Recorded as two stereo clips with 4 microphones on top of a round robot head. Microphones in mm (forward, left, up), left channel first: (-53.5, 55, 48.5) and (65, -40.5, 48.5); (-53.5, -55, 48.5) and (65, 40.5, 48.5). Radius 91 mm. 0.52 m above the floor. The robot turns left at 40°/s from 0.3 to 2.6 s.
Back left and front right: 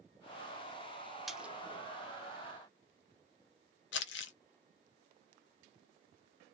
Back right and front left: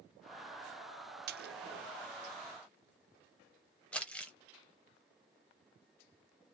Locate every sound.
1.3 s a splash: 50° left, 0.6 m; by 1.6 s 40° left, 0.6 m
3.9 s crumpling: 135° left, 0.6 m